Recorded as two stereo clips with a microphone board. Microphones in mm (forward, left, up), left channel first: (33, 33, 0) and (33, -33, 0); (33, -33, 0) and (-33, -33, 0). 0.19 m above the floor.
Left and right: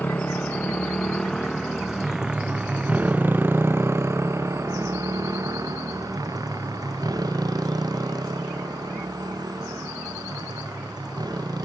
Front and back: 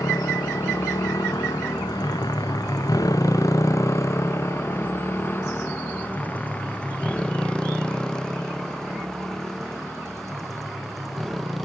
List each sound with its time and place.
0.0 s a motorcycle: 25° left; by 11.7 s 90° right